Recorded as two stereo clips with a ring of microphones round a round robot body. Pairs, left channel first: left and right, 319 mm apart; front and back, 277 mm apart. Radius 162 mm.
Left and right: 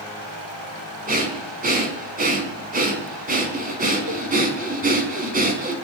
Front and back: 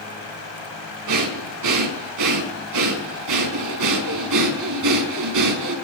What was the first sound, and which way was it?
Breathing, 155° right.